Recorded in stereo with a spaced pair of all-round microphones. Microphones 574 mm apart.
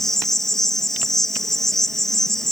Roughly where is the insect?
Centre.